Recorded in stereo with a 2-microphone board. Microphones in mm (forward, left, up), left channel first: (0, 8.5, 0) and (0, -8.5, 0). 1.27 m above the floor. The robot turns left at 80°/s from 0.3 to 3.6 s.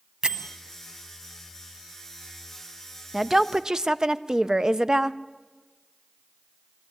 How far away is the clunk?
I don't hear a clunk.